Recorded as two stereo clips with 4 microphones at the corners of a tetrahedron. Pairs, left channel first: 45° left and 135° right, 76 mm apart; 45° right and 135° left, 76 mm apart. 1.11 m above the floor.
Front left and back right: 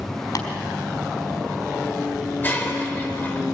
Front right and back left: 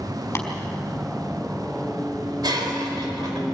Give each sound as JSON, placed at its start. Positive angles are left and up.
{"t": 0.3, "sound": "tapping", "azimuth_deg": 10, "distance_m": 3.5}
{"t": 2.4, "sound": "breaking glass", "azimuth_deg": 110, "distance_m": 3.0}